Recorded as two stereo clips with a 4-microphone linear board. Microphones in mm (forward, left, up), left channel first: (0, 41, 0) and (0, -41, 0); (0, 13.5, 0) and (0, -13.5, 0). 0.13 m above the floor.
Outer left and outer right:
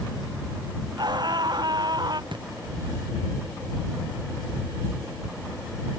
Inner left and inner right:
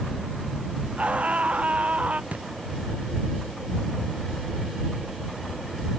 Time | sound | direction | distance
1.0 | a scream | 60° right (ahead or behind) | ?
2.3 | a thud | 70° right (ahead or behind) | ?